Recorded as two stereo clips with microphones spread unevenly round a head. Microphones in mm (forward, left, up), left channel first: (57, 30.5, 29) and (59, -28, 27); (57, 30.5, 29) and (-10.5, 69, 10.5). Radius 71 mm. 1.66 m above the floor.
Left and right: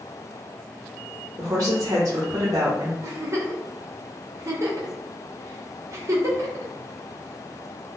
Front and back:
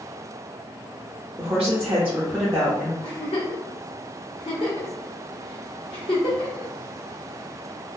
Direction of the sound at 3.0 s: 50° right.